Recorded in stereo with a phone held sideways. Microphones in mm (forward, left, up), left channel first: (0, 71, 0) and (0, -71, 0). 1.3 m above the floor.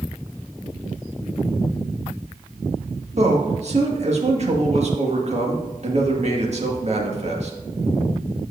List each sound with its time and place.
3.2 s a man speaking: 50° right (ahead or behind), 1.8 m